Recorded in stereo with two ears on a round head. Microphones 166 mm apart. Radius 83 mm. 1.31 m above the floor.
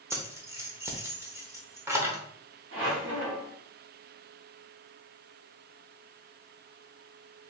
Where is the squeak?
75° right (ahead or behind), 1.6 m.